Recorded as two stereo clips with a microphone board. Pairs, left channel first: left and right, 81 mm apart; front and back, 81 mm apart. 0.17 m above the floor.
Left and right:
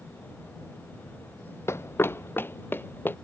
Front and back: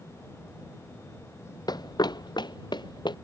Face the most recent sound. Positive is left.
turn(degrees=25)